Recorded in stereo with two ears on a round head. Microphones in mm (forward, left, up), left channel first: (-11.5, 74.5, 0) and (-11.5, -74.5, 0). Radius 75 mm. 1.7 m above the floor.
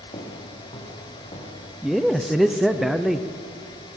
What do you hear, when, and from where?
0.1 s footsteps: 30° left (ahead or behind), 5 m
1.8 s a man speaking: centre (ahead or behind), 0.7 m